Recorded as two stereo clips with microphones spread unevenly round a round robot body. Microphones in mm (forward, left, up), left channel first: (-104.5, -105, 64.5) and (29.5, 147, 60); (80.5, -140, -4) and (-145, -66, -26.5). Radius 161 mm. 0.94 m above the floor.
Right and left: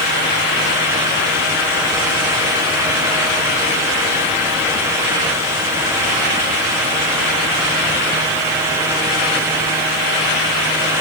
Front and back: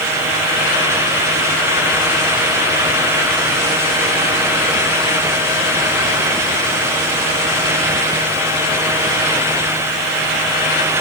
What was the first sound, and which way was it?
Only background noise.